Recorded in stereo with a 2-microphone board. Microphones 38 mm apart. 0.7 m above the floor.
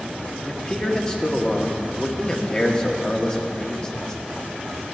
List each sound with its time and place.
0.5 s a man speaking: 20° left (ahead or behind), 1.2 m